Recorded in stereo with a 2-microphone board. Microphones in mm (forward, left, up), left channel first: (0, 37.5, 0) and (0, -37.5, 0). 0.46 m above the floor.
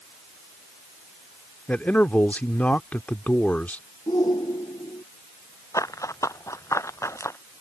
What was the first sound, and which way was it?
A man speaking, 20° left (ahead or behind).